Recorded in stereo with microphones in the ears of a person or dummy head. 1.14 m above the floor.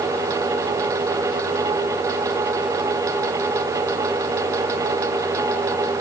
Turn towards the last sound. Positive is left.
No sound to turn to.